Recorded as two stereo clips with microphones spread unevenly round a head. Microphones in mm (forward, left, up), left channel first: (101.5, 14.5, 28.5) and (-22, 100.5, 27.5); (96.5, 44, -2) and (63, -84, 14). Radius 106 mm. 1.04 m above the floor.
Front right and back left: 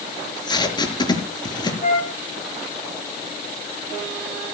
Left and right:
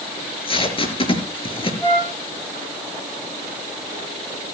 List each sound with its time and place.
0.2 s tape being pulled: 25° left, 5 m
1.8 s a flute: 5° left, 9 m